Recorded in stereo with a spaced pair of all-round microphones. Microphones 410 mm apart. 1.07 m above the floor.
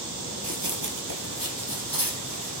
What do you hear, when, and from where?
0.4 s running footsteps: 40° right (ahead or behind), 1.5 m; by 2.6 s 55° right (ahead or behind), 3.5 m